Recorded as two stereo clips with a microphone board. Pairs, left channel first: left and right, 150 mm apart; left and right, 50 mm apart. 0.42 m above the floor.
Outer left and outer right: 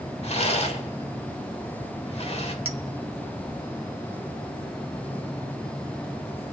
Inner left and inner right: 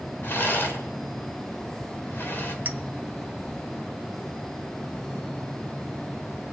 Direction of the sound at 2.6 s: 40° right (ahead or behind).